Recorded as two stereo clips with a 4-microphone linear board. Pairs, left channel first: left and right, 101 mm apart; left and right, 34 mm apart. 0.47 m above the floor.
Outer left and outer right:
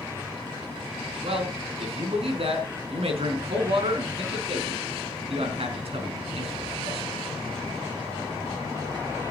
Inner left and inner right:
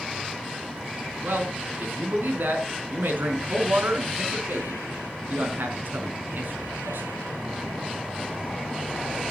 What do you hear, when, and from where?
1.2 s a man speaking: 70° right (ahead or behind), 4 m